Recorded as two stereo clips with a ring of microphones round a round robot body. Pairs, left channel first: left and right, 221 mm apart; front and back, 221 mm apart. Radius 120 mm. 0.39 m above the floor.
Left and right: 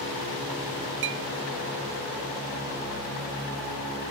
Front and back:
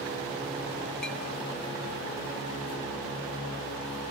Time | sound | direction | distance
1.0 | a clink | 85° right | 0.7 m